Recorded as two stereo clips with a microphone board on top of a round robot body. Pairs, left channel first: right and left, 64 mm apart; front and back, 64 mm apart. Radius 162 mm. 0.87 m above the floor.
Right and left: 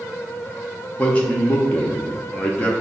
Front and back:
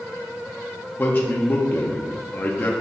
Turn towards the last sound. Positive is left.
turn(degrees=-40)